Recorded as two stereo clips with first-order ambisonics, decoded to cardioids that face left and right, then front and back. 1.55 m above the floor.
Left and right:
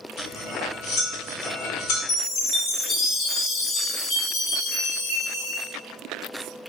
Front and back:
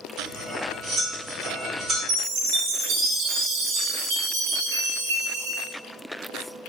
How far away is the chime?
About 0.9 m.